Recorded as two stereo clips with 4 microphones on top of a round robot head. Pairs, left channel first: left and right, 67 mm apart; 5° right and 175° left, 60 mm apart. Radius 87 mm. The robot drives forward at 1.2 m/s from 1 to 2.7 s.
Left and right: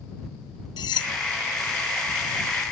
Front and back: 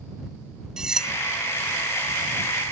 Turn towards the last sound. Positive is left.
turn(degrees=115)